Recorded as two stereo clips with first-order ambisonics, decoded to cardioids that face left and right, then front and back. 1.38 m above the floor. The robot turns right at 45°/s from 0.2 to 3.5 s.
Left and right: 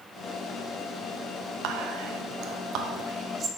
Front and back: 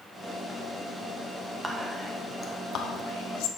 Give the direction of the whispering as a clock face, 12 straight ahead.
3 o'clock.